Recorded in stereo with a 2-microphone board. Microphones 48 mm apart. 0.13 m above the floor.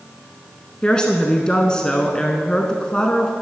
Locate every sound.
0.8 s a woman speaking: 15° left (ahead or behind), 1.0 m